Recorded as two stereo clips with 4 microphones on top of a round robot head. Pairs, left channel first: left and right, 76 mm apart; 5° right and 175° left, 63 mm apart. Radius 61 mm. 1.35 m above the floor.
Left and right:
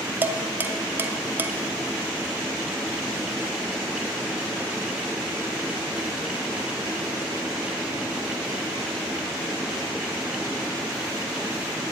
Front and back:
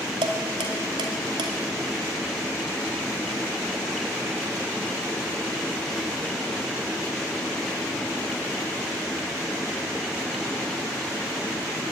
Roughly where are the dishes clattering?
Behind right.